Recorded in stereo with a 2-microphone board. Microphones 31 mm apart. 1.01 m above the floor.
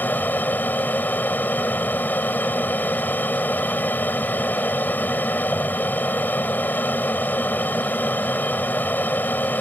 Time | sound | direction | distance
0.0 | an aircraft | 75° left (ahead or behind) | ?